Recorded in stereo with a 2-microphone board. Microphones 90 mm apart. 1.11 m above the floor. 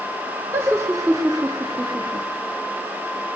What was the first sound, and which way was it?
Laughter, 30° right (ahead or behind).